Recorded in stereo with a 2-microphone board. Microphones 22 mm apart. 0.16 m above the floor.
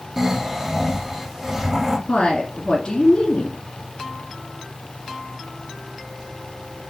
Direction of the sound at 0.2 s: 15° right (ahead or behind).